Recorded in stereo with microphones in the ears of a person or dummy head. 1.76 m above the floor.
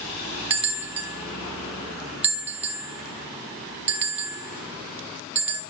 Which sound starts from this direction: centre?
A bell, at 0.5 s.